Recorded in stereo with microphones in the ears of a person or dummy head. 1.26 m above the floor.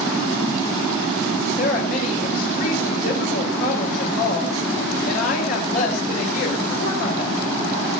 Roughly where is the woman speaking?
Left.